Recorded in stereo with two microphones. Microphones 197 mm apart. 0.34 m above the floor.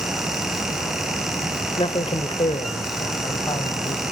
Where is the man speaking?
25° left (ahead or behind), 1.2 m.